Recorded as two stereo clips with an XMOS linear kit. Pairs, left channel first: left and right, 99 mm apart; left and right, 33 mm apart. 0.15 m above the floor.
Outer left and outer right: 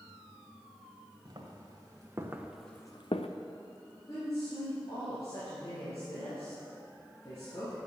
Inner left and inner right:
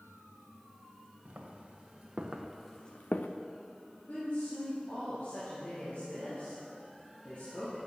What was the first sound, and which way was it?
Footsteps, 45° right (ahead or behind).